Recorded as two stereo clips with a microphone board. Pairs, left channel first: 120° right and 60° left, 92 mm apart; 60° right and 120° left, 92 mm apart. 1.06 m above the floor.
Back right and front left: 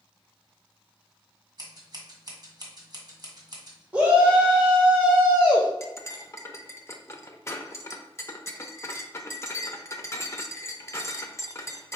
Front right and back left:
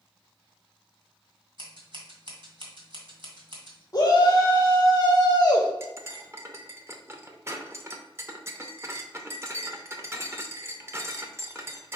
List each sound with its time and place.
1.6 s scissors: 95° left, 1.6 m
3.9 s a shout: 5° right, 0.9 m
5.8 s cutlery clinking: straight behind, 0.6 m